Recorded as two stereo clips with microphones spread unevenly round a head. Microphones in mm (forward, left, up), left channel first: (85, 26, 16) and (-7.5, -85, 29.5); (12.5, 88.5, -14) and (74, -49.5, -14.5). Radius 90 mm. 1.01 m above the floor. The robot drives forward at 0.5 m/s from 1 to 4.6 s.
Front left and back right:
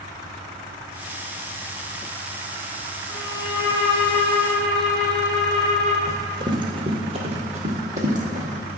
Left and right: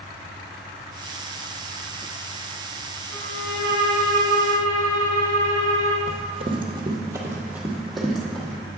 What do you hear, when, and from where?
3.1 s a violin: 120° left, 3 m; by 6.0 s 130° left, 3 m
6.1 s running footsteps: 80° right, 1.3 m; by 8.6 s 165° right, 1.9 m